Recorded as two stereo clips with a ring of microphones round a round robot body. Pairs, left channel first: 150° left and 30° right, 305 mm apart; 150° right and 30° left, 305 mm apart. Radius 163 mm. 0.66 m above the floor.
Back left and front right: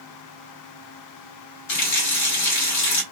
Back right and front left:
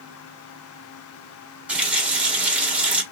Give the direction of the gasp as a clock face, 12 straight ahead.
No gasp in this recording.